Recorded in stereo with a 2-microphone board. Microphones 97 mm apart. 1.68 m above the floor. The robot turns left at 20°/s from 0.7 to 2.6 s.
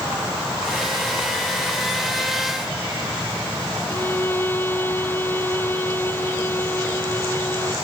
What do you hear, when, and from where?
3.9 s a violin: 20° left (ahead or behind)